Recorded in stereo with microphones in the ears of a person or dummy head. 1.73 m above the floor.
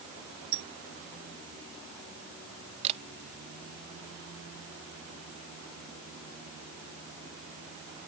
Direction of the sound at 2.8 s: 35° right (ahead or behind).